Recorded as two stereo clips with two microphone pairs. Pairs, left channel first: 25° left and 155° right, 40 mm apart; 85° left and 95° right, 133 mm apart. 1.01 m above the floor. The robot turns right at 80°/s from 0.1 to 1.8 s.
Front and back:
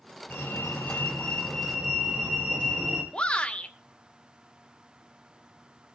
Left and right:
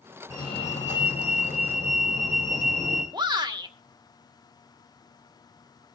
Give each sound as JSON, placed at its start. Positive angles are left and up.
{"t": 0.3, "sound": "a fire alarm", "azimuth_deg": 25, "distance_m": 6.0}
{"t": 3.1, "sound": "a shout", "azimuth_deg": -35, "distance_m": 2.0}